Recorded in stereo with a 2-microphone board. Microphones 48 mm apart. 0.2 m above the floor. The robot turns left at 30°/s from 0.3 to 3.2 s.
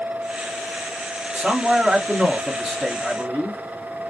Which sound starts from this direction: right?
A man speaking, at 1.3 s.